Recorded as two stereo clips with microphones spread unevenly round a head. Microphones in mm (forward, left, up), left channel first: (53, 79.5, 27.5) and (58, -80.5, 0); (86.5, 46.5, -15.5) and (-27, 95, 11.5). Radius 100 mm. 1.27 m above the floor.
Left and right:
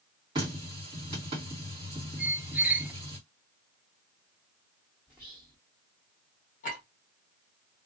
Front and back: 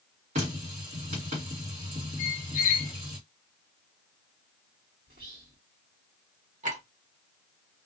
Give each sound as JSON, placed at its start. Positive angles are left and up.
{"t": 0.3, "sound": "a running tap", "azimuth_deg": -160, "distance_m": 1.3}
{"t": 2.2, "sound": "a squeak", "azimuth_deg": -5, "distance_m": 0.6}
{"t": 5.1, "sound": "whispering", "azimuth_deg": -170, "distance_m": 1.3}
{"t": 6.6, "sound": "a clink", "azimuth_deg": 145, "distance_m": 1.1}